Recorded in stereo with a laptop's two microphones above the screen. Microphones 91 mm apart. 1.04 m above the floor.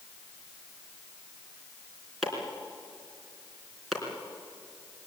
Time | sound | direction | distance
2.2 | chopping | centre (ahead or behind) | 3.5 m